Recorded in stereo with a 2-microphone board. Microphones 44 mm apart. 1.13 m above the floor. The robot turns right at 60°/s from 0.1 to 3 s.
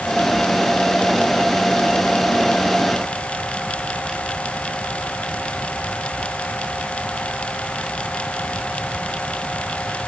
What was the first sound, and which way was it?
Only background noise.